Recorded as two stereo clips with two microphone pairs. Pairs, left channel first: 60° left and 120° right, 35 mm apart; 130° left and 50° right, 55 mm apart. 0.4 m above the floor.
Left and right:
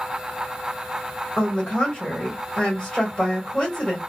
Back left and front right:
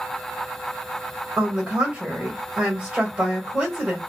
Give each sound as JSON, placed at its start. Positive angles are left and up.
{"t": 1.4, "sound": "a woman speaking", "azimuth_deg": 5, "distance_m": 1.3}